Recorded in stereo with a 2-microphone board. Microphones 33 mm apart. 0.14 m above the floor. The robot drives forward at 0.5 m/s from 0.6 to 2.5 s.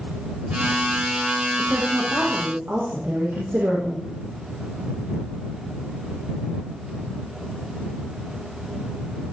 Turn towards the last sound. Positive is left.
turn(degrees=-80)